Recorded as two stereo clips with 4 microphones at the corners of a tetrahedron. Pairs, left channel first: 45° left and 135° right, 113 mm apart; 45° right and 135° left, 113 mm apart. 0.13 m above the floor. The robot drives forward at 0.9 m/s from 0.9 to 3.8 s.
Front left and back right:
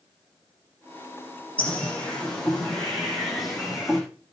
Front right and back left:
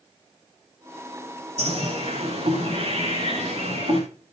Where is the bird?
120° left, 6.5 m; by 4.0 s 135° left, 8 m.